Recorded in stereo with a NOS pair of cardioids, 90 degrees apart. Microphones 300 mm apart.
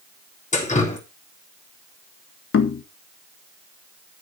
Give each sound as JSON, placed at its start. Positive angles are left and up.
{"t": 0.5, "sound": "dripping", "azimuth_deg": 25, "distance_m": 3.5}
{"t": 2.5, "sound": "knocking", "azimuth_deg": 45, "distance_m": 1.7}